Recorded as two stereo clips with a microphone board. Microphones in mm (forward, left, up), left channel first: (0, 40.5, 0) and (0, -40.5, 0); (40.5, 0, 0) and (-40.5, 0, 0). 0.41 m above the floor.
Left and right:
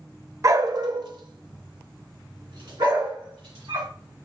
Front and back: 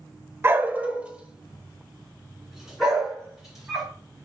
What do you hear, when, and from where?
0.4 s a dog barking: 125° right, 0.5 m; by 3.9 s 95° right, 3 m